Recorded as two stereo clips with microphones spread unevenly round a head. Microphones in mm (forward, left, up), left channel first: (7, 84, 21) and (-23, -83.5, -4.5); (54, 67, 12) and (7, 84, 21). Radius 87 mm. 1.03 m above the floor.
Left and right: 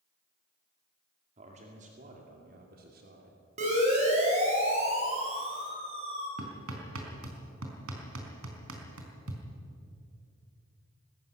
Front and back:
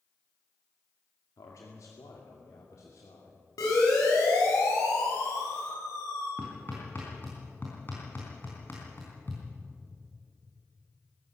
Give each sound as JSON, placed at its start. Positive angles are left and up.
{"t": 1.4, "sound": "a man speaking", "azimuth_deg": -45, "distance_m": 2.0}
{"t": 3.6, "sound": "a siren", "azimuth_deg": -50, "distance_m": 6.5}
{"t": 6.4, "sound": "hammering", "azimuth_deg": -100, "distance_m": 4.0}